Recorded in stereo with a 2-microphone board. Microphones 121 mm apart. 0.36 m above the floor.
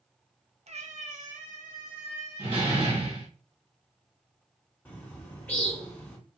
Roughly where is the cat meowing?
Right.